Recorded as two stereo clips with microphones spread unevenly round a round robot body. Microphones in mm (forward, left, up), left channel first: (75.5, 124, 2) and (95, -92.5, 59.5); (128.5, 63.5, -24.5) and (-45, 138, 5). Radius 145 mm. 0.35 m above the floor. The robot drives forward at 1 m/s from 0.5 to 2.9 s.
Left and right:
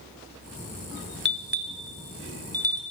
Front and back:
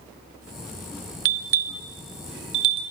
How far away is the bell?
About 0.8 m.